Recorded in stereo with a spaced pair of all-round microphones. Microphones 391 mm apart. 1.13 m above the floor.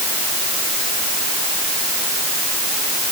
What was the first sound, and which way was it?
Only background noise.